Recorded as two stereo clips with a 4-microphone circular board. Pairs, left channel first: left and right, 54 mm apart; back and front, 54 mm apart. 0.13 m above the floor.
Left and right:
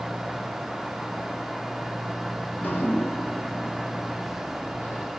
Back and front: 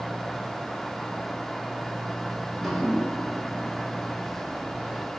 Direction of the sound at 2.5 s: 95° left.